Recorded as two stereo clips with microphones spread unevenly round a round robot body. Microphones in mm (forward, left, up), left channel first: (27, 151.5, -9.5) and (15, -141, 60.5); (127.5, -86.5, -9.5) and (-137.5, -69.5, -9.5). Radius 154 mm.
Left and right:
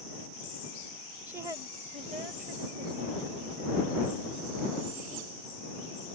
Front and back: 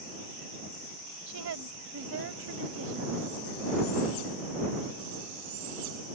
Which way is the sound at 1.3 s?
175° left.